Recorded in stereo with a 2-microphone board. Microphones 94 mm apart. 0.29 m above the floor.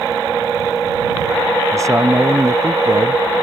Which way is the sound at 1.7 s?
35° right (ahead or behind).